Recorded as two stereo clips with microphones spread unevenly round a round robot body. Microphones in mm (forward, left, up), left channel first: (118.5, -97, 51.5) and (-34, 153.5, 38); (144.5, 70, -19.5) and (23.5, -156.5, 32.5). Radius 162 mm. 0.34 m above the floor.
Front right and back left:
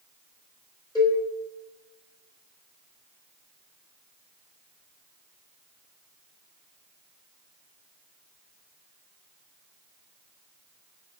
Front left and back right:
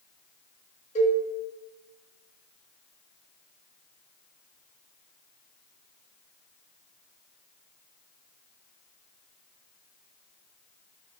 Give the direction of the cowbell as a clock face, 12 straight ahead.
11 o'clock.